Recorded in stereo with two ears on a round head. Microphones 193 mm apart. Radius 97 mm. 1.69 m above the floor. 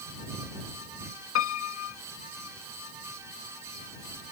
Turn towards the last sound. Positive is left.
turn(degrees=70)  # may be behind; listen again after turning